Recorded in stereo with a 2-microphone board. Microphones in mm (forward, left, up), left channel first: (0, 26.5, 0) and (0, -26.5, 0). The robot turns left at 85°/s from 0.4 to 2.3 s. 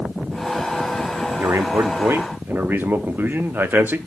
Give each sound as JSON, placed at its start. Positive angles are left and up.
{"t": 1.4, "sound": "a man speaking", "azimuth_deg": -60, "distance_m": 1.0}